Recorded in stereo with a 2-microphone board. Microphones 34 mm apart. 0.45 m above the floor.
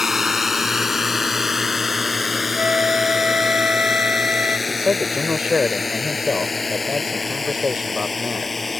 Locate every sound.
0.0 s a drone: 5° right (ahead or behind); by 8.8 s 5° left (ahead or behind)
2.6 s a flute: 45° right (ahead or behind)
4.7 s a man speaking: 30° right (ahead or behind)